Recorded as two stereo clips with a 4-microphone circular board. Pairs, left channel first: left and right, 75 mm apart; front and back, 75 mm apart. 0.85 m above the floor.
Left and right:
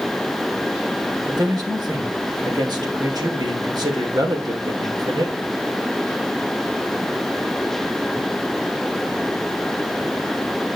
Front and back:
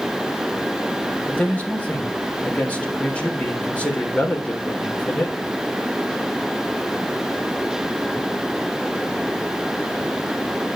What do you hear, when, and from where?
1.3 s a man speaking: 70° right, 3.5 m